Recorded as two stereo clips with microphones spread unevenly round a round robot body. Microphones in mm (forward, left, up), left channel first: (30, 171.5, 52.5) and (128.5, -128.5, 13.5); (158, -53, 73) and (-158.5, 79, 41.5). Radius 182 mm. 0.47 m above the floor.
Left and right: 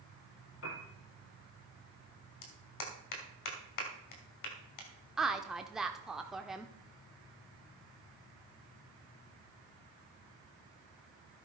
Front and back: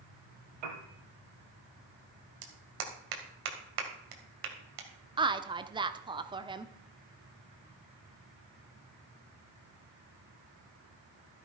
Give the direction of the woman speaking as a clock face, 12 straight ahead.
5 o'clock.